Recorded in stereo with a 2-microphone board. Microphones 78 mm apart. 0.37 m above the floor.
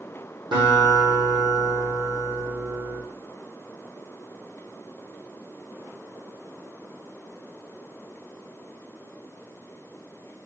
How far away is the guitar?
About 3.5 m.